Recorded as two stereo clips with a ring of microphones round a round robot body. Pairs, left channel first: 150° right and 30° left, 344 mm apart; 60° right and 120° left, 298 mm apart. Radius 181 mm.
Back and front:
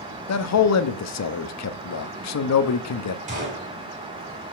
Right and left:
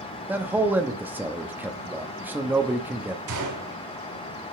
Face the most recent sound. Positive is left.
turn(degrees=100)